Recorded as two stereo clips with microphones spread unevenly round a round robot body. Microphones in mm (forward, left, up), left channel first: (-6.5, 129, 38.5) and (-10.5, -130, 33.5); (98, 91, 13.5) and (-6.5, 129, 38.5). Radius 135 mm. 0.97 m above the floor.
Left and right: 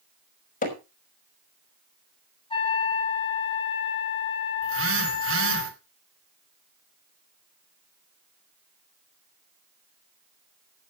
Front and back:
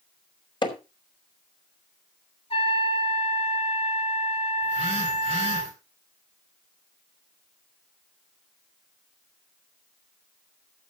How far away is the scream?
No scream in this recording.